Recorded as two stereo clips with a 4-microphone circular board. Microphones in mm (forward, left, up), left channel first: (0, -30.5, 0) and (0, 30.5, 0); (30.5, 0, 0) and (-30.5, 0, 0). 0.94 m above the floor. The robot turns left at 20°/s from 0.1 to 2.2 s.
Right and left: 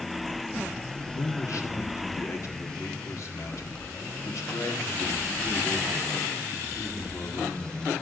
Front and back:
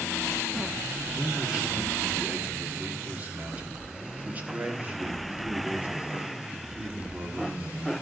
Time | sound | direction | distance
1.1 | a man speaking | 95° right | 1.6 m